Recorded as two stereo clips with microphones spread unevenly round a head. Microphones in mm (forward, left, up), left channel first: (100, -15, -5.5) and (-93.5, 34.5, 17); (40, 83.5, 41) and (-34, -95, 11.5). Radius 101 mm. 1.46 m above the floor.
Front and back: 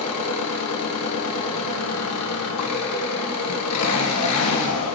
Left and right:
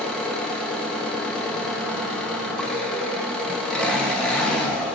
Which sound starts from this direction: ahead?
An engine running, at 0.0 s.